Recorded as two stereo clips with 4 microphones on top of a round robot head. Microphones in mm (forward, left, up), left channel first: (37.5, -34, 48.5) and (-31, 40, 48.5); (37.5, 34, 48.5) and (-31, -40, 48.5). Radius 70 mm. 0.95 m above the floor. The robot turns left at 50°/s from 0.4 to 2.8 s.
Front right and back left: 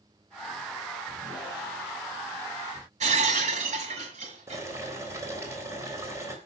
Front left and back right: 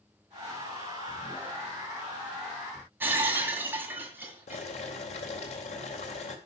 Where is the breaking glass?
155° left, 2.5 m.